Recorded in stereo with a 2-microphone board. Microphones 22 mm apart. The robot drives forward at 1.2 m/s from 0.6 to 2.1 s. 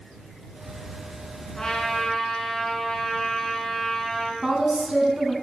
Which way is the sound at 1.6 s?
30° left (ahead or behind).